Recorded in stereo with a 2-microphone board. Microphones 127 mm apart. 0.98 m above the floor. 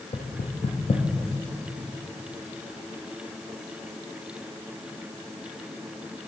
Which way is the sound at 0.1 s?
60° left (ahead or behind).